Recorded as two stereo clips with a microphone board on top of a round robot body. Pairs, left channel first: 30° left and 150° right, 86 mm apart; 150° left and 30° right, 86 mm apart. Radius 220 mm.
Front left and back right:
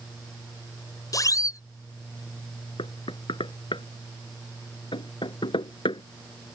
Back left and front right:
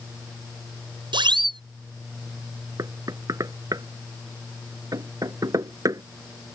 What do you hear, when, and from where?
1.1 s a siren: 15° right
2.8 s knocking: 15° left